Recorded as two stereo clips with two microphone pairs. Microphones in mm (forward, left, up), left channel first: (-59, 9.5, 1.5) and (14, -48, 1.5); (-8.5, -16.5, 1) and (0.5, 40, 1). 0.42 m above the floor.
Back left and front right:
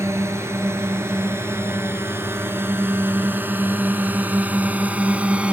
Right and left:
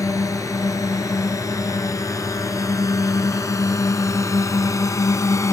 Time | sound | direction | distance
0.0 | a drone | 100° right | ?